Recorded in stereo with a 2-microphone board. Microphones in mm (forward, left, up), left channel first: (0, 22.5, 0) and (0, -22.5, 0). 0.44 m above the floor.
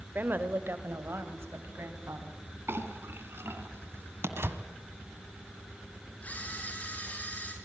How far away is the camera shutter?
About 7 m.